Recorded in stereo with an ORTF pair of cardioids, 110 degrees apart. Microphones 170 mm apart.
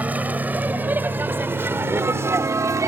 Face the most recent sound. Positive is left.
turn(degrees=-20)